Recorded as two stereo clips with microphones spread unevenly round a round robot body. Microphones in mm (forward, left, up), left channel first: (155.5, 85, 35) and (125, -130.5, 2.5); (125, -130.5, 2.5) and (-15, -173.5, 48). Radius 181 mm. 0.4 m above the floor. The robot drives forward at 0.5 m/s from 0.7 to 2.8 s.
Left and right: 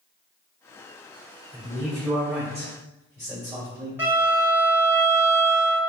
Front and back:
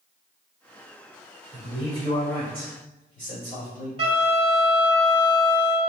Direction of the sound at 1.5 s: 165° right.